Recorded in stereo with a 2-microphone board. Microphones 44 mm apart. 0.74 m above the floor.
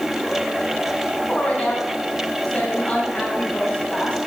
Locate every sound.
1.3 s a woman speaking: 30° left (ahead or behind), 4.5 m